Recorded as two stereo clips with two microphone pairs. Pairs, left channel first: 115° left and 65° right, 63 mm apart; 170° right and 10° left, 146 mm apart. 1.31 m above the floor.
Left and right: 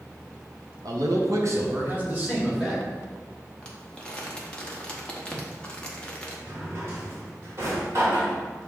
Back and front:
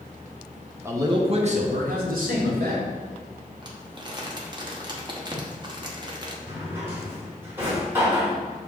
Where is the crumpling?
50° left, 0.8 m.